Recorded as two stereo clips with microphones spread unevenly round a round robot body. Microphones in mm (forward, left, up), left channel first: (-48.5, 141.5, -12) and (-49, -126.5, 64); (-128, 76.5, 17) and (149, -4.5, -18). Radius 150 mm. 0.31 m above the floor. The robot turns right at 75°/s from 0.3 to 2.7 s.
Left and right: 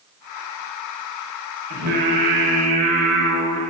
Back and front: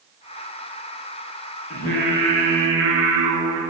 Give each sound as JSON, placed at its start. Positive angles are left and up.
{"t": 1.7, "sound": "singing", "azimuth_deg": -125, "distance_m": 2.0}